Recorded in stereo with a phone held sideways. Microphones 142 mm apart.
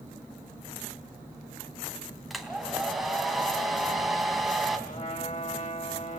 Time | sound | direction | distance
2.3 | a hair dryer | centre (ahead or behind) | 3 m
4.9 | a trumpet | 55° left (ahead or behind) | 3 m